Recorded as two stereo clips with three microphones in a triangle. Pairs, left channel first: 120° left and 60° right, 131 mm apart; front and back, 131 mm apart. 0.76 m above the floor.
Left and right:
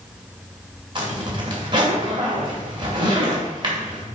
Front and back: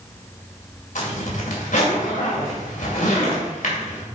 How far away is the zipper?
About 2.5 m.